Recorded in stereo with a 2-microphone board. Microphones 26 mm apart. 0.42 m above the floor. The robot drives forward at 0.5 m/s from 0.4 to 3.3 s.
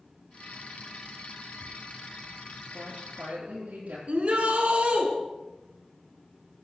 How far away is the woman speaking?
About 9 m.